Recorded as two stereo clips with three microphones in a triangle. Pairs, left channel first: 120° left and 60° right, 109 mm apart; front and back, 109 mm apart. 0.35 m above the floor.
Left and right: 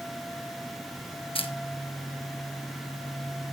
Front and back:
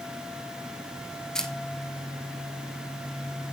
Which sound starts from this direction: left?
A camera shutter, at 1.4 s.